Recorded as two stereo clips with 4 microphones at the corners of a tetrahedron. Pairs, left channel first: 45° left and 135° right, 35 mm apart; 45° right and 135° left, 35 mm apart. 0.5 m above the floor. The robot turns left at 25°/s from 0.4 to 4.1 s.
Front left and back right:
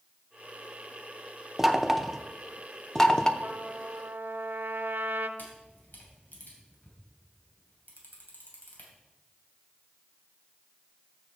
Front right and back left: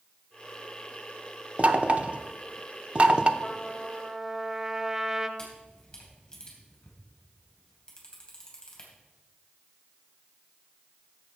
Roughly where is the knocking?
Behind left.